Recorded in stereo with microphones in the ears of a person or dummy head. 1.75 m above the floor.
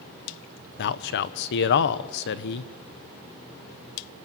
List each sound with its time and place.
0.8 s a man speaking: 55° left (ahead or behind), 1.0 m